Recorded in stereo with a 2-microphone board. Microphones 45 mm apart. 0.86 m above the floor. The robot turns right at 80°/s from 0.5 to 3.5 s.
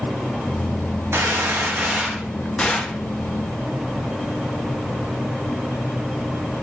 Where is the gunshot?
100° right, 0.5 m; by 3.0 s 45° left, 0.5 m.